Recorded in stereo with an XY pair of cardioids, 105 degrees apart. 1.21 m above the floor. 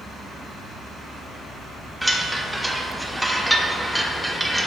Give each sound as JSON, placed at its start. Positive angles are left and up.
{"t": 2.0, "sound": "a chime", "azimuth_deg": -10, "distance_m": 0.9}